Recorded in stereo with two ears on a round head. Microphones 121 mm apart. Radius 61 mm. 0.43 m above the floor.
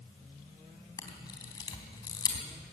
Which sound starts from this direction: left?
A camera shutter, at 1.0 s.